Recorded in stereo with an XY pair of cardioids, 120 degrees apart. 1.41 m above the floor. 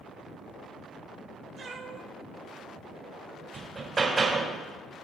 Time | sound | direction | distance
1.6 | a cat meowing | 50° right | 2.5 m
3.5 | hammering | 35° right | 3 m